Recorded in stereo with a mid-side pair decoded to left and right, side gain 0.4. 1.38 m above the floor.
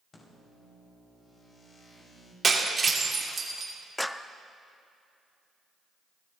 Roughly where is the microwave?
Ahead left.